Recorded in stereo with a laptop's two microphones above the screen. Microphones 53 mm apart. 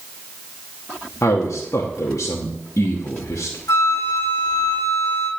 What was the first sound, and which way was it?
A man speaking, 75° left (ahead or behind).